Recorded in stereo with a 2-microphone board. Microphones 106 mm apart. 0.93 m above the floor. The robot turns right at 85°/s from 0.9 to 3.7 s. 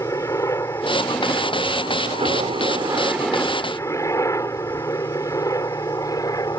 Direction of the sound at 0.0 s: 30° left (ahead or behind).